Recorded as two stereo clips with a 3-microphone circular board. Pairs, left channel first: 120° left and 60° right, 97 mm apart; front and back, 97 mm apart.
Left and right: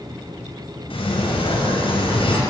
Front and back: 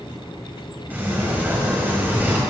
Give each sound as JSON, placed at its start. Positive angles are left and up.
{"t": 0.9, "sound": "a sliding door", "azimuth_deg": 110, "distance_m": 4.0}